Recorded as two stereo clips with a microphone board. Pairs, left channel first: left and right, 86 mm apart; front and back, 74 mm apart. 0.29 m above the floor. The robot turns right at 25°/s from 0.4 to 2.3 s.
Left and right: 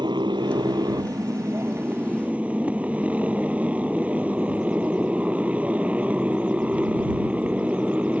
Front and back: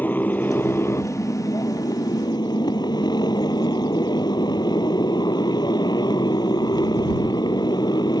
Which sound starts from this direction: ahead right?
A motorcycle, at 0.0 s.